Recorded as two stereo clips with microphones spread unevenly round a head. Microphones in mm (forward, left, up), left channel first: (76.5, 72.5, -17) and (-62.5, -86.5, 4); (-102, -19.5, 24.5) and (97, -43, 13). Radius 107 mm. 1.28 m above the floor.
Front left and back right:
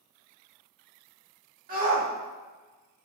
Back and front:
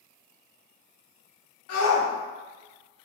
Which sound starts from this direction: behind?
A shout, at 1.7 s.